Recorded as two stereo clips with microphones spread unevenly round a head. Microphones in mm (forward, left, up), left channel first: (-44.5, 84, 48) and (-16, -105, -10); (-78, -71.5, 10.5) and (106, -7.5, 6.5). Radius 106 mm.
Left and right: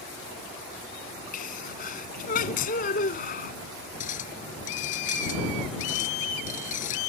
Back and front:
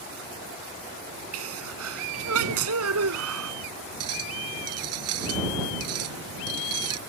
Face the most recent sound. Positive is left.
turn(degrees=45)